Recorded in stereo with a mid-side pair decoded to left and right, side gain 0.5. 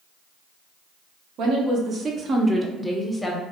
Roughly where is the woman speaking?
Ahead right.